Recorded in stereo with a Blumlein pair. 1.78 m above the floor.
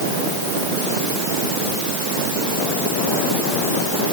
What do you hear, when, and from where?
Only background noise.